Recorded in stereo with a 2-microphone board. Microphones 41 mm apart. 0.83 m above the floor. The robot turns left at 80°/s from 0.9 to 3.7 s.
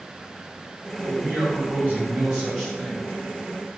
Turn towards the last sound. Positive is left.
turn(degrees=95)